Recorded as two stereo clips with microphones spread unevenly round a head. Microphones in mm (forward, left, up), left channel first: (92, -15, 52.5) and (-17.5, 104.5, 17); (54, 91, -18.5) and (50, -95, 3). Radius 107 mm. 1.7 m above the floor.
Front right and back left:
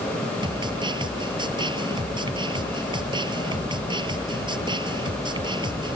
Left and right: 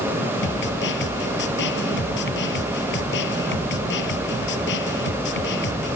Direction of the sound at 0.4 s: 70° left.